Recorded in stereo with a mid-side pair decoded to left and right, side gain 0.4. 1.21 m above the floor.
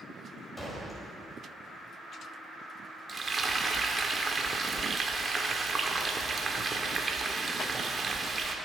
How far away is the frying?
About 1.8 m.